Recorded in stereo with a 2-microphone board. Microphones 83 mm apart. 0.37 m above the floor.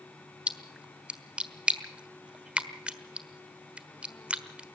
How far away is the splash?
About 1.3 m.